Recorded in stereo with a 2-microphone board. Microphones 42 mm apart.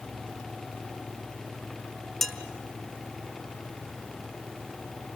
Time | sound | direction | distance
2.2 | dishes clattering | 5° left (ahead or behind) | 2.5 m